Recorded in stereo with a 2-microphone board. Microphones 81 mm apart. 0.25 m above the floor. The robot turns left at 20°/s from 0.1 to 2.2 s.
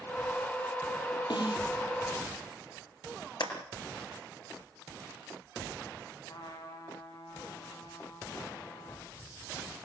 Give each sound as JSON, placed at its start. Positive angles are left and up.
{"t": 1.3, "sound": "a snare drum", "side_deg": 75, "distance_m": 6.5}
{"t": 3.4, "sound": "a clap", "side_deg": 70, "distance_m": 3.5}
{"t": 6.3, "sound": "a trumpet", "side_deg": 80, "distance_m": 8.5}